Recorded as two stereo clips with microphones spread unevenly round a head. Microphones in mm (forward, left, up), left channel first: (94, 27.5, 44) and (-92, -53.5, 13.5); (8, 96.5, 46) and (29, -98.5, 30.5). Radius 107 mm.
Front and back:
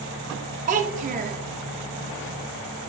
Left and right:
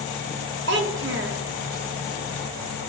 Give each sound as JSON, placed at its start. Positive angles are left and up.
{"t": 0.7, "sound": "a child speaking", "azimuth_deg": -105, "distance_m": 0.9}